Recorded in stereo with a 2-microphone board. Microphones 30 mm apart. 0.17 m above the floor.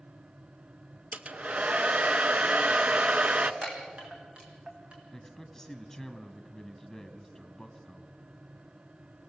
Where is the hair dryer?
50° right (ahead or behind), 0.8 m.